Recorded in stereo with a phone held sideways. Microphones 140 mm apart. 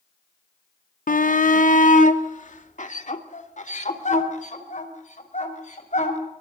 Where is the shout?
75° left (ahead or behind), 0.6 m; by 6.2 s 60° left (ahead or behind), 6 m.